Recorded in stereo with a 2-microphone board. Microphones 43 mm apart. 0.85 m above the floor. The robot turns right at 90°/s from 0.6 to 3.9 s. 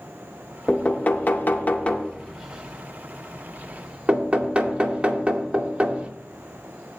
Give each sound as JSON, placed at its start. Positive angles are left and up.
{"t": 0.7, "sound": "knocking", "side_deg": 15, "distance_m": 0.8}